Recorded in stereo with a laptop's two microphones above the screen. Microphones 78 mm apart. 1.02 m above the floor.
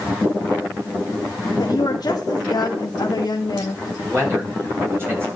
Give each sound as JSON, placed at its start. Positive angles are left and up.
{"t": 1.6, "sound": "a woman speaking", "side_deg": 55, "distance_m": 1.2}
{"t": 4.0, "sound": "a man speaking", "side_deg": -30, "distance_m": 5.0}